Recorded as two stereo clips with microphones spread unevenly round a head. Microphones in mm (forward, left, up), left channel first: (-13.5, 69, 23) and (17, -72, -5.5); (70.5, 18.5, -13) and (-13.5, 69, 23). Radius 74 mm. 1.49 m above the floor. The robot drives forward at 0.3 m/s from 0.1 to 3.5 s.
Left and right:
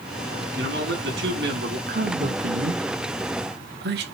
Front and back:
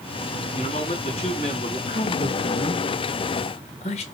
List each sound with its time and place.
0.6 s a man speaking: 75° right, 4.5 m; by 1.8 s 80° right, 4.5 m
1.9 s a man speaking: 50° right, 1.8 m; by 4.0 s 65° right, 1.5 m